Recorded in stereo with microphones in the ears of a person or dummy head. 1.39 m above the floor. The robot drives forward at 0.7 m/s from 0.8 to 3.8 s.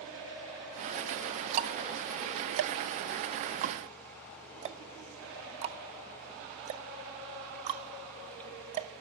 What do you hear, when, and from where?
1.5 s ticking: 40° right (ahead or behind), 1.1 m; by 8.9 s 35° right (ahead or behind), 1.1 m